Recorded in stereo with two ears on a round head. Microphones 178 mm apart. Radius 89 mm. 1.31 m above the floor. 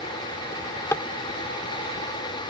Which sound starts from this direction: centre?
A drawer, at 0.5 s.